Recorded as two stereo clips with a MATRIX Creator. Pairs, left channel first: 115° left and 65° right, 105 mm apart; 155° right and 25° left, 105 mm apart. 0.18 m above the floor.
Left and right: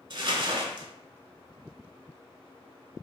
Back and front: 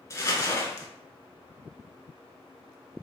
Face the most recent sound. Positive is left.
turn(degrees=-100)